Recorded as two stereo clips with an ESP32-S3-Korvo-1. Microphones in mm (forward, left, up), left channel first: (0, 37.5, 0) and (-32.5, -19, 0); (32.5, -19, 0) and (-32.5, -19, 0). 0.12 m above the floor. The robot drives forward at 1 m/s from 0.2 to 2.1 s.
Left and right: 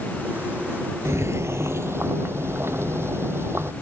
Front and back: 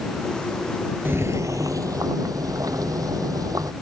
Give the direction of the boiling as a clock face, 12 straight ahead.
5 o'clock.